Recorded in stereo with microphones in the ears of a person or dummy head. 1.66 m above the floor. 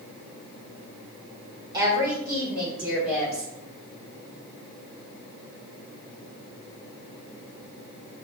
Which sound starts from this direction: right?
A woman speaking, at 1.7 s.